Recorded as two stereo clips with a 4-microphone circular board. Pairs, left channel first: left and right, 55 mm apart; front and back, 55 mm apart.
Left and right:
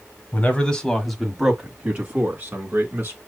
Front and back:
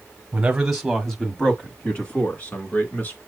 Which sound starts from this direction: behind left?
A man speaking, at 0.3 s.